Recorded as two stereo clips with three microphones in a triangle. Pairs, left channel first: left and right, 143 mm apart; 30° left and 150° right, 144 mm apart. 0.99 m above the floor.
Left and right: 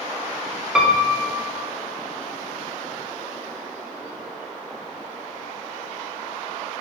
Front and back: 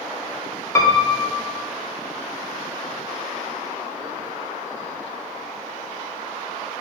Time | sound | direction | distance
0.8 | a piano | 10° right | 0.5 m